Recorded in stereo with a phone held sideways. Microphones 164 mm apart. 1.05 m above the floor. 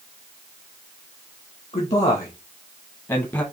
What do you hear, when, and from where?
1.7 s a man speaking: 50° left (ahead or behind), 1.7 m; by 3.4 s 20° left (ahead or behind), 1.2 m